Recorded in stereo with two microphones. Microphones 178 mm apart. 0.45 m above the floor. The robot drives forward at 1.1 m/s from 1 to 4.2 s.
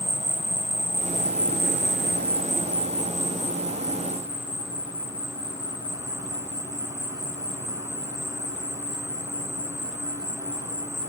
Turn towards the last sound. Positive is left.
turn(degrees=-20)  # may be behind; listen again after turning